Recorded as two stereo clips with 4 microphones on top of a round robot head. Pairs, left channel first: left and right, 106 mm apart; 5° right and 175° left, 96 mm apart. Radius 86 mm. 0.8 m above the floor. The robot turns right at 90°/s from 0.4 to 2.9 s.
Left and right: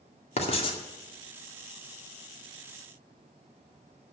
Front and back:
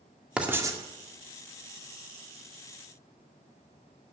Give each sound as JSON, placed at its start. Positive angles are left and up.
{"t": 0.4, "sound": "writing", "azimuth_deg": 100, "distance_m": 2.0}